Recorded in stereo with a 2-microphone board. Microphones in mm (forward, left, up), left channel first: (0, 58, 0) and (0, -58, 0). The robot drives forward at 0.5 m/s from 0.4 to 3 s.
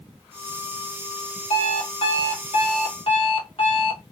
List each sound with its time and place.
1.5 s an alarm clock: 60° left (ahead or behind), 1.4 m; by 4.0 s 50° left (ahead or behind), 1.6 m